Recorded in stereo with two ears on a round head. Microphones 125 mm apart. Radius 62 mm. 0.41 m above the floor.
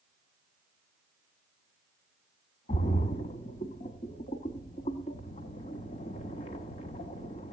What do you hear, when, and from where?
2.7 s a splash: 45° left (ahead or behind), 0.8 m